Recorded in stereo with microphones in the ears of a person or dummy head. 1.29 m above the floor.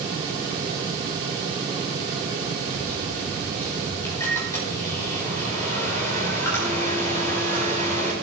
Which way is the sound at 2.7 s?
15° left (ahead or behind).